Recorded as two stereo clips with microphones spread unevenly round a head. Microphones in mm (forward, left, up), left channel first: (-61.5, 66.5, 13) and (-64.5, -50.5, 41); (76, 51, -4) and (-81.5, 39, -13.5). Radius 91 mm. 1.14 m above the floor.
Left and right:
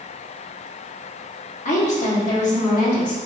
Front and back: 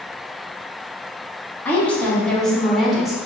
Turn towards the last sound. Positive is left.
turn(degrees=95)